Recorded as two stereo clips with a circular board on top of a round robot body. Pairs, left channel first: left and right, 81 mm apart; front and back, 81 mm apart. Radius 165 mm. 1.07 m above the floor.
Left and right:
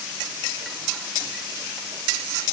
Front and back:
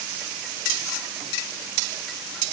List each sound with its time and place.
Only background noise.